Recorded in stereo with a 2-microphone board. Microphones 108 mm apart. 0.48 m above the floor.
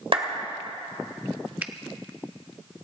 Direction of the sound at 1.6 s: 15° right (ahead or behind).